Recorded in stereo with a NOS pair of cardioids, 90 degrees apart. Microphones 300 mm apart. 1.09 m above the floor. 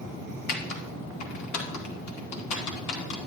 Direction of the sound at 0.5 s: 70° left.